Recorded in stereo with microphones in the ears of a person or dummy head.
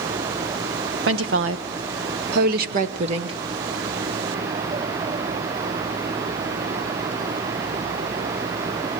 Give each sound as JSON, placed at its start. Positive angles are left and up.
{"t": 1.1, "sound": "a woman speaking", "side_deg": -60, "distance_m": 1.5}